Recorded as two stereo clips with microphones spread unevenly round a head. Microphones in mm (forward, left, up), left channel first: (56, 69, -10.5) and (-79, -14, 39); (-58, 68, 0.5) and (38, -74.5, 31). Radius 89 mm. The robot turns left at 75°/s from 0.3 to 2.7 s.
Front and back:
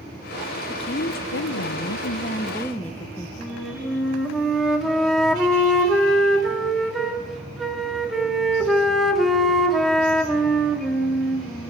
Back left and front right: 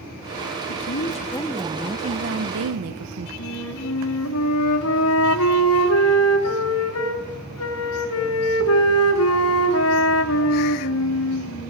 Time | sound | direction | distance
0.7 | a woman speaking | 100° left | 1.0 m
3.4 | a flute | 125° left | 2.5 m